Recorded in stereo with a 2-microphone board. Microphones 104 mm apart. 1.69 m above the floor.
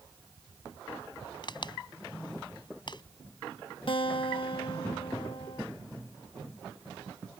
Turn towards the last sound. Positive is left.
turn(degrees=55)  # may be behind; listen again after turning